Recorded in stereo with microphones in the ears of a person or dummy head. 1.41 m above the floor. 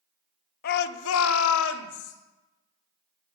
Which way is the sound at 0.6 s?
50° left (ahead or behind).